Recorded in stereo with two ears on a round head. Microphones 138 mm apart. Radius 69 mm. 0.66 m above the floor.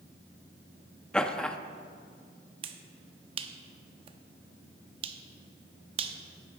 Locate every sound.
1.1 s laughter: 5° left (ahead or behind), 0.5 m
2.6 s a finger snap: 35° right (ahead or behind), 0.6 m